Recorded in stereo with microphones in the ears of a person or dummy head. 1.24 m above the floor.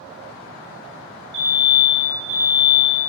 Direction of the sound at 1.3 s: 50° right (ahead or behind).